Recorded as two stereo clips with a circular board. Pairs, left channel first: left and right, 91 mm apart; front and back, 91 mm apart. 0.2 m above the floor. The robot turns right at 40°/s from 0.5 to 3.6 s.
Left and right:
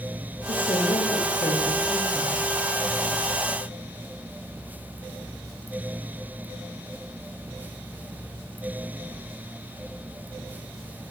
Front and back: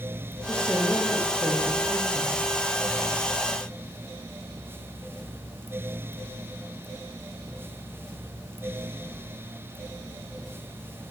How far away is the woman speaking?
About 8 m.